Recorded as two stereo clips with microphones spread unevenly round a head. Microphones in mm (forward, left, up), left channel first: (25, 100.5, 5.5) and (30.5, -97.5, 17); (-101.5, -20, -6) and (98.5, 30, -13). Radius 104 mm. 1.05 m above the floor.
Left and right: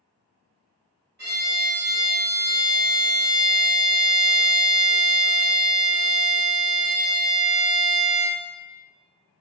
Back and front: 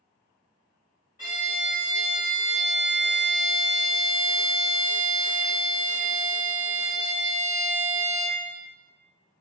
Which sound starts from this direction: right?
A violin, at 1.2 s.